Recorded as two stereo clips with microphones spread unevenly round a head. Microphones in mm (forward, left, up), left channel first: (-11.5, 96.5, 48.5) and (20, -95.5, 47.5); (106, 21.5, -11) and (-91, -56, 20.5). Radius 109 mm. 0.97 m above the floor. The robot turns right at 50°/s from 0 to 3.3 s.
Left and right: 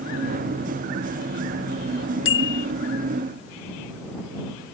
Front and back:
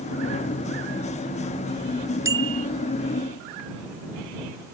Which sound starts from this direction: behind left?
A bicycle bell, at 2.2 s.